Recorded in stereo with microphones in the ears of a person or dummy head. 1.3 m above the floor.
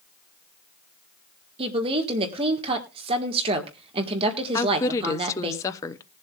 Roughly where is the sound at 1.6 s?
Right.